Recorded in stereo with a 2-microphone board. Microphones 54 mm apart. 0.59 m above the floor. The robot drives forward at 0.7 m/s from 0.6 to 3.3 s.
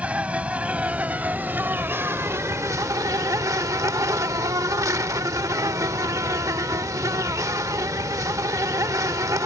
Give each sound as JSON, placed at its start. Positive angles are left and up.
{"t": 0.0, "sound": "an insect", "side_deg": -25}